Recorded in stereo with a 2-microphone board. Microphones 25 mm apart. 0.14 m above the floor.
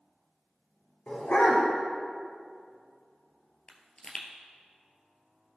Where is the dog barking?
70° left (ahead or behind), 2 m.